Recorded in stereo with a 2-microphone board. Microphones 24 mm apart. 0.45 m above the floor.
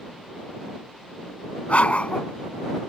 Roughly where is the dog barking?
Left.